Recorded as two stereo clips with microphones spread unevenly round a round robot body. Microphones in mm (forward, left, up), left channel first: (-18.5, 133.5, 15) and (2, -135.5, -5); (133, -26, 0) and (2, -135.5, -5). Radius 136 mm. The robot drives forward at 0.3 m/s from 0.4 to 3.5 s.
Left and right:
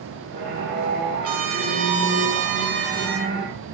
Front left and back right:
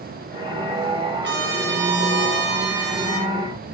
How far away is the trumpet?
About 1.7 m.